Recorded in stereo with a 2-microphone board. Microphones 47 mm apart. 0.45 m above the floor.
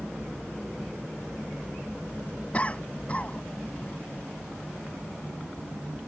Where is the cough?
30° left (ahead or behind).